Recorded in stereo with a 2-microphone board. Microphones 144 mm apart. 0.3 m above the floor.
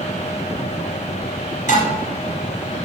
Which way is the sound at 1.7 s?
55° left (ahead or behind).